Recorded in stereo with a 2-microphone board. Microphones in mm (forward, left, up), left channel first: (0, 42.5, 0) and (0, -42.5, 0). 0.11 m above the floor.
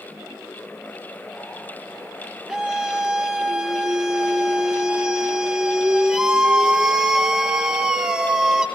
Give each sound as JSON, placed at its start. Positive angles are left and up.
{"t": 2.5, "sound": "a scream", "side_deg": -10, "distance_m": 2.5}